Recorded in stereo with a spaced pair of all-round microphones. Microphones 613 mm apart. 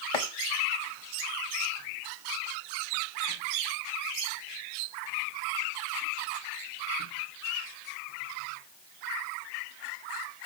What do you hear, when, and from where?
0.1 s chopping: 55° left (ahead or behind), 0.8 m